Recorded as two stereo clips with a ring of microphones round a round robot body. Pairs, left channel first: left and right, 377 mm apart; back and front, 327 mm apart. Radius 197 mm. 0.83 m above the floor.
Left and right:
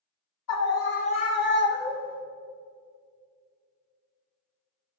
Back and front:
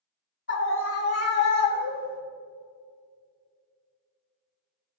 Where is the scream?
130° left, 1.9 m; by 2.2 s 155° left, 2.5 m.